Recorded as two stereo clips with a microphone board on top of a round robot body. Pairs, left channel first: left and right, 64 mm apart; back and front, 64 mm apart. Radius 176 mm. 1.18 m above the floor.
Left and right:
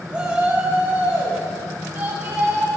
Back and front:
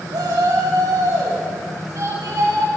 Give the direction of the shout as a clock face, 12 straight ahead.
1 o'clock.